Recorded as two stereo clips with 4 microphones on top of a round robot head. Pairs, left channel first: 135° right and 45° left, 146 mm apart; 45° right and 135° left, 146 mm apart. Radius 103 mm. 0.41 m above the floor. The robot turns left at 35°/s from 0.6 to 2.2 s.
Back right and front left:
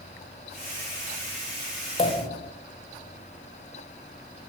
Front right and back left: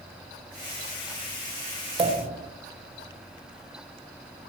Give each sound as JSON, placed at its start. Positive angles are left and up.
{"t": 2.0, "sound": "a pop", "azimuth_deg": -175, "distance_m": 1.9}